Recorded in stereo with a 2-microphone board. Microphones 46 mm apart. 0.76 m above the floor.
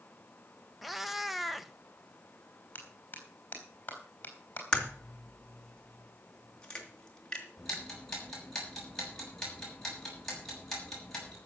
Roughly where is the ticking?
Centre.